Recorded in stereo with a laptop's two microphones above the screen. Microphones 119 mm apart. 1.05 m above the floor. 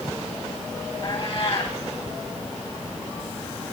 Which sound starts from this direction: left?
A cat meowing, at 1.0 s.